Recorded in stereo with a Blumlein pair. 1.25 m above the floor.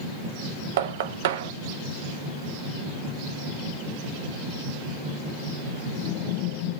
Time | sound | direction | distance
0.8 | knocking | 55° right | 0.6 m